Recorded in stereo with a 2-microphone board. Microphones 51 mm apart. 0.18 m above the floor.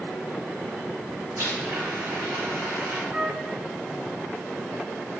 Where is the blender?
50° right (ahead or behind), 2.5 m.